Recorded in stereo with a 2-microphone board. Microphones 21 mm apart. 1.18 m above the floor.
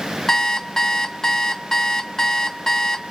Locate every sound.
0.3 s an alarm clock: 30° left (ahead or behind), 0.7 m